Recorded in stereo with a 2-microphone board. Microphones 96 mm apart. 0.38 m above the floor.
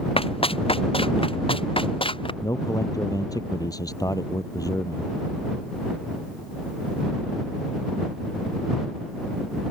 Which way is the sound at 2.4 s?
40° left (ahead or behind).